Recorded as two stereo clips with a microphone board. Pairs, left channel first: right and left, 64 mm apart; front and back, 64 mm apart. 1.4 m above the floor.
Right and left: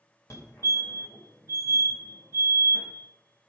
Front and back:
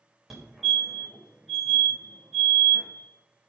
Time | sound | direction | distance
0.3 | a fire alarm | 95° right | 2.5 m